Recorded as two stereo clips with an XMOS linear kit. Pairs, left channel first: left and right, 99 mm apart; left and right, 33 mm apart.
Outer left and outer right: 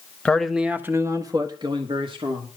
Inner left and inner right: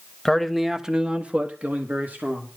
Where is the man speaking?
10° left (ahead or behind), 1.3 m; by 2.5 s 65° right (ahead or behind), 2.5 m.